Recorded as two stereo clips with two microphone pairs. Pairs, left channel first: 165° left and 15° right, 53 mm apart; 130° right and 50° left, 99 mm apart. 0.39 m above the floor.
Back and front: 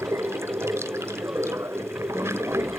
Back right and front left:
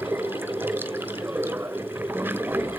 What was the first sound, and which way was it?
Running water, 10° right.